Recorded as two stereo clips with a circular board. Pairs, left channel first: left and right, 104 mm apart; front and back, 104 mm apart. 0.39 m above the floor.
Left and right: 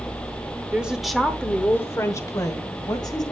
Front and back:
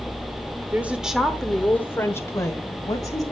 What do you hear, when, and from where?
0.7 s a woman speaking: 140° right, 1.0 m; by 3.3 s 50° left, 2 m